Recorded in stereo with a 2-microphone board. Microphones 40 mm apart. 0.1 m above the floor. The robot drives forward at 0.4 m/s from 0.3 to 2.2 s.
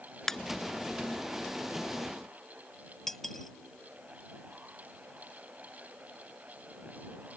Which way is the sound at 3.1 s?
5° left (ahead or behind).